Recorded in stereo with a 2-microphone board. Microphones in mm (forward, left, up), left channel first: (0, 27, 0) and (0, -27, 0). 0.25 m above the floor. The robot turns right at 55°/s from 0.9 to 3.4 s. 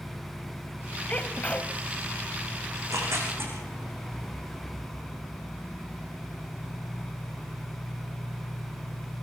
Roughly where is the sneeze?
Left.